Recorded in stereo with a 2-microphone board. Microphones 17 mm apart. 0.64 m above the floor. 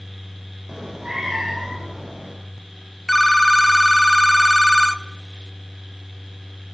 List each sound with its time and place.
0.7 s a cat meowing: 45° right (ahead or behind), 8.5 m
3.1 s a phone ringing: 5° left (ahead or behind), 0.9 m